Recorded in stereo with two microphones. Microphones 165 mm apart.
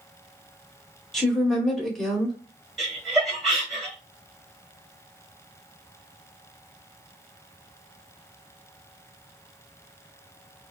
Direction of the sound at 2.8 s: Centre (ahead or behind).